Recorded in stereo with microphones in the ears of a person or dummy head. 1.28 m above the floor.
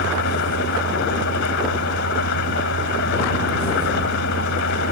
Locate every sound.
0.0 s an engine running: 55° left (ahead or behind)